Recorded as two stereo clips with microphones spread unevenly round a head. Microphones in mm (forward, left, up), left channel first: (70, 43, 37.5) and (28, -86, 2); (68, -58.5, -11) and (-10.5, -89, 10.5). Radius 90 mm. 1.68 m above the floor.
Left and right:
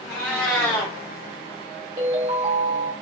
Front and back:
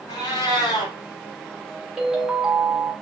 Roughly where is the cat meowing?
Ahead left.